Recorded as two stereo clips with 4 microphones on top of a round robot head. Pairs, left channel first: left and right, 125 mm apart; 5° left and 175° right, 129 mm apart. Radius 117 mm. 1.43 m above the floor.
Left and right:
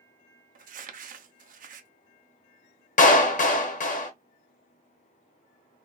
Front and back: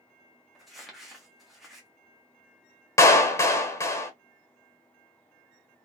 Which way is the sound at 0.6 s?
85° right.